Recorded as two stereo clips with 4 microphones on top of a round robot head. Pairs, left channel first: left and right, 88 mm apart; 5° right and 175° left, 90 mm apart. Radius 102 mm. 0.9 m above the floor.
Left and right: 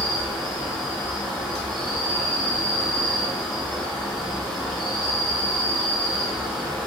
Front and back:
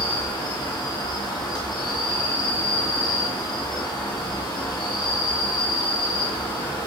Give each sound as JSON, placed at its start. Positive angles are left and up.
{"t": 0.0, "sound": "an insect", "azimuth_deg": -5, "distance_m": 2.5}